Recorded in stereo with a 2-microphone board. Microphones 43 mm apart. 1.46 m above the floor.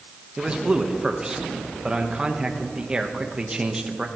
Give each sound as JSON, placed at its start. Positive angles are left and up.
{"t": 0.4, "sound": "a man speaking", "side_deg": -20, "distance_m": 1.2}